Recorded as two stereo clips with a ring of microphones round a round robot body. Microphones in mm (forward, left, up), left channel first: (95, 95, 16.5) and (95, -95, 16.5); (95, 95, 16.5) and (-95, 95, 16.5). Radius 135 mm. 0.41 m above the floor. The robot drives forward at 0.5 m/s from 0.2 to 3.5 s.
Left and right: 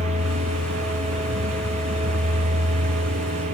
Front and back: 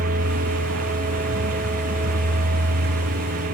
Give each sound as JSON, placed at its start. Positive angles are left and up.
{"t": 0.0, "sound": "a vehicle", "azimuth_deg": -135}